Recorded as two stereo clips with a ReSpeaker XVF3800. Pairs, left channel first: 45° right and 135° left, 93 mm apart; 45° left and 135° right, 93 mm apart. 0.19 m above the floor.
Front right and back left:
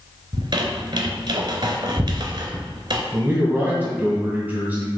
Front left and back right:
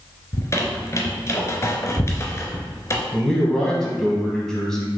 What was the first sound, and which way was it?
A squeak, 105° left.